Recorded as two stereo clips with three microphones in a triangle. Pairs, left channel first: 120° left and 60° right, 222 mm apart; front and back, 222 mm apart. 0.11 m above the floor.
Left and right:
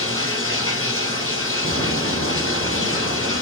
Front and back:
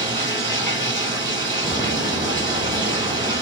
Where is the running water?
5° left, 2.5 m.